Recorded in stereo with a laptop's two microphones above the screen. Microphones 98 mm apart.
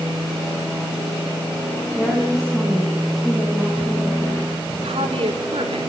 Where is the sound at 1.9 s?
10° right (ahead or behind), 8.5 m; by 4.4 s 5° left (ahead or behind), 11 m.